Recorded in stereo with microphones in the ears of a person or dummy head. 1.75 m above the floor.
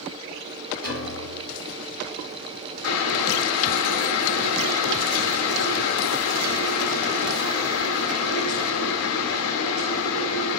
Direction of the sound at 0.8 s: 65° right (ahead or behind).